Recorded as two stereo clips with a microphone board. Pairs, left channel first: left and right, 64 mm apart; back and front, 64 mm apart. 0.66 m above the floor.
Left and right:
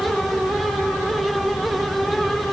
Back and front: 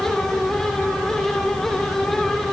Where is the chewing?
I don't hear chewing.